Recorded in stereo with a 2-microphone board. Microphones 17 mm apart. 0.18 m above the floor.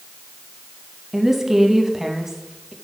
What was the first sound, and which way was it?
A woman speaking, 20° right (ahead or behind).